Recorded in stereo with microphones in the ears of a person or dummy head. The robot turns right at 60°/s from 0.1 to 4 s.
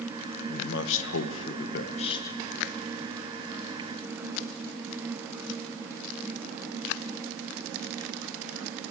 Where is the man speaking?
55° left, 0.7 m; by 2.4 s 170° left, 0.7 m.